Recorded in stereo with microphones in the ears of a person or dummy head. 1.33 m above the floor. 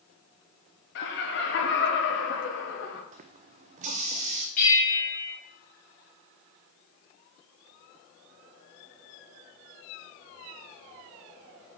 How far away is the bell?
About 2.5 m.